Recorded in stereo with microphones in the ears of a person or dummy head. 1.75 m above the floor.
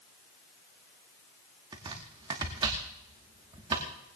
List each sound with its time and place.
1.7 s chopping: 20° right (ahead or behind), 1.3 m